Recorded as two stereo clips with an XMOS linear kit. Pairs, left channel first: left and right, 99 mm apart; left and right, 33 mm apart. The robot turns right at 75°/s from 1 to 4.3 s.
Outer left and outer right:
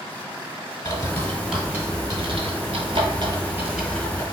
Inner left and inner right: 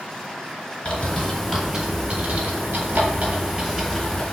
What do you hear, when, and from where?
0.8 s a bird: 35° left (ahead or behind), 1.3 m